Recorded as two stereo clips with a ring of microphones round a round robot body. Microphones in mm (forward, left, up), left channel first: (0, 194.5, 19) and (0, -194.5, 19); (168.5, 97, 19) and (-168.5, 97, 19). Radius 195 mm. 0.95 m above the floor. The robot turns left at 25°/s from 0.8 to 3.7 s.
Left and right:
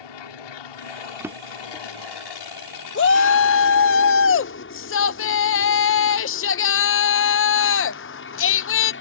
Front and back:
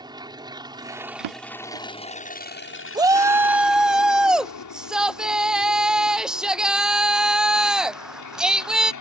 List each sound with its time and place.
0.0 s an aircraft: 105° left; by 9.0 s 30° left
1.2 s a drawer: 175° right; by 1.9 s 170° left
3.0 s a shout: 110° left; by 8.9 s 95° left